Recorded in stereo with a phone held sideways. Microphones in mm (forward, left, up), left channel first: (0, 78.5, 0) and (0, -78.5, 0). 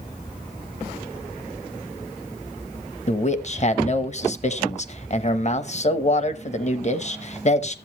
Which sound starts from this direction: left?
A man speaking, at 3.1 s.